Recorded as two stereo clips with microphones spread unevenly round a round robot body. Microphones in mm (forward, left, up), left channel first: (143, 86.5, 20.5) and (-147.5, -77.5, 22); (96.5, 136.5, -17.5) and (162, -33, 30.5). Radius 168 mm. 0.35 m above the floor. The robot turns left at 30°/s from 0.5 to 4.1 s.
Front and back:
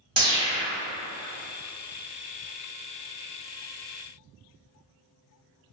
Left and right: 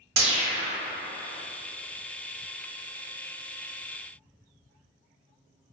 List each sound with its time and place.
0.2 s a whoosh: 75° right, 0.5 m; by 0.8 s 80° right, 0.5 m